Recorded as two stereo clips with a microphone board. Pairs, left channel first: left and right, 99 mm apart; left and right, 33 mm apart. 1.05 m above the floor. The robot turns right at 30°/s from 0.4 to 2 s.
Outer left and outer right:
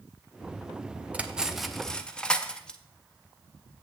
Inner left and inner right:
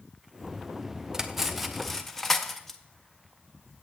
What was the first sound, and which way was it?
Cutlery clinking, 15° right (ahead or behind).